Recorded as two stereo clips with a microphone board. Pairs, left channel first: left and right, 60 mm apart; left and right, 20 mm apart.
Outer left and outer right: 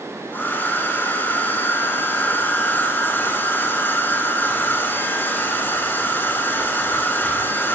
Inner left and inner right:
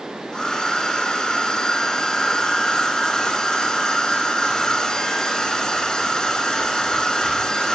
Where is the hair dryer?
35° left (ahead or behind), 5.5 m.